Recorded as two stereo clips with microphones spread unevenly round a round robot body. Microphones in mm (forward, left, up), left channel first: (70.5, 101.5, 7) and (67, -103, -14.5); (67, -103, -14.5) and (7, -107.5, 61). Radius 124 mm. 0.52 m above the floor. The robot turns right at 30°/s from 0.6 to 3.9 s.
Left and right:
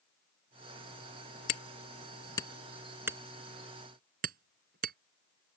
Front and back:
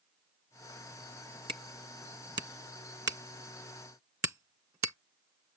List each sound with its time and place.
1.5 s hammering: 140° left; by 5.0 s 150° right